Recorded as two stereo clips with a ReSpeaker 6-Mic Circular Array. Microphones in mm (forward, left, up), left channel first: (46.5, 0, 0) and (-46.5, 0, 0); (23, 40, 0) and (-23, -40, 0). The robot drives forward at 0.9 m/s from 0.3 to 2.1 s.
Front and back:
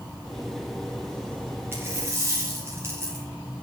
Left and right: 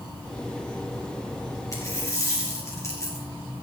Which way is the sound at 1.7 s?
115° left.